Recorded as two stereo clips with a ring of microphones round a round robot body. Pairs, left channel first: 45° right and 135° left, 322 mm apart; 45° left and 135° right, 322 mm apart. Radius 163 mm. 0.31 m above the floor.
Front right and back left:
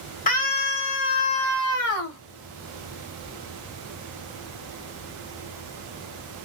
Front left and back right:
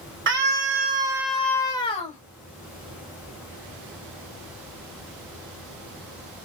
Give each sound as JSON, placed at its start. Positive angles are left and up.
{"t": 0.3, "sound": "a scream", "azimuth_deg": -100, "distance_m": 1.3}